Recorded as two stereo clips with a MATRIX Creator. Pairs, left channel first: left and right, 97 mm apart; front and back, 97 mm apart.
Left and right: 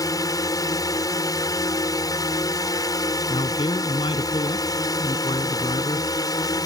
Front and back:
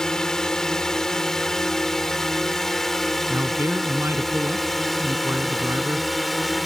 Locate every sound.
0.0 s a drone: 80° left; by 6.7 s 90° left
3.3 s a man speaking: 115° left